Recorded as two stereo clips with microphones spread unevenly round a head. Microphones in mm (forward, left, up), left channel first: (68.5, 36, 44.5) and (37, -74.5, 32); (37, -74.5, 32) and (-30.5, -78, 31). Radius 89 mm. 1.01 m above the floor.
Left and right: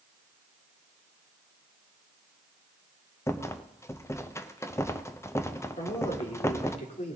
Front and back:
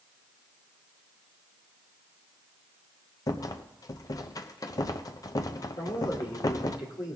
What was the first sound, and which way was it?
A rattle, 5° left.